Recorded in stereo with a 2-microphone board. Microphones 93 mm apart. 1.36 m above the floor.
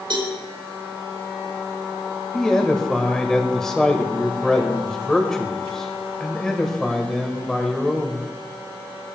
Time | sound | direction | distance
0.1 | a cowbell | 65° right (ahead or behind) | 3 m
2.3 | a man speaking | 5° left (ahead or behind) | 1.6 m